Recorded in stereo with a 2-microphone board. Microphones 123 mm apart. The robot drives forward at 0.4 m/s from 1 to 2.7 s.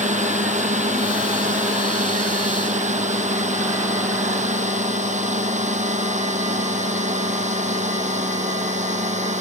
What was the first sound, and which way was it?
A drone, 75° right (ahead or behind).